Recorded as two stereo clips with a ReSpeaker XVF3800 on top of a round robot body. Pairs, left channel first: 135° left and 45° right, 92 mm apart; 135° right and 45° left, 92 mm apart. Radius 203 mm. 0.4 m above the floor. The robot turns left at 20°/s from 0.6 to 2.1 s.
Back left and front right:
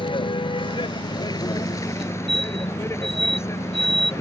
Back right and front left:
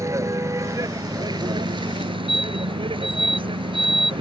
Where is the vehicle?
105° left; by 4.2 s 75° left.